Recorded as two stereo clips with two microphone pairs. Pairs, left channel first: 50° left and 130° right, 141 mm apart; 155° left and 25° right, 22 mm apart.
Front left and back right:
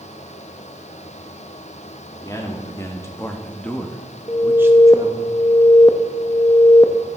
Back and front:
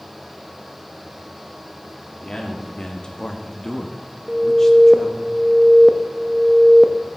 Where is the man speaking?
115° left, 1.6 m; by 5.3 s 125° right, 0.9 m.